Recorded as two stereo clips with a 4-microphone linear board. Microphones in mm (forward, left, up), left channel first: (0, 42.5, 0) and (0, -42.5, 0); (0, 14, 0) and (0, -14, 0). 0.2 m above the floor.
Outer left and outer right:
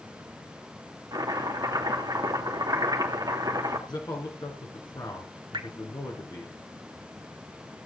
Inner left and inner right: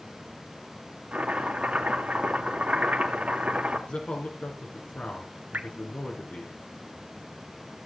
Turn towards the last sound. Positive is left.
turn(degrees=-65)  # may be behind; listen again after turning